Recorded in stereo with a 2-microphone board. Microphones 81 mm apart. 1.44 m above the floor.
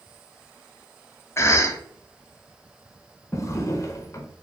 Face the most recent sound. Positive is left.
turn(degrees=35)  # may be behind; listen again after turning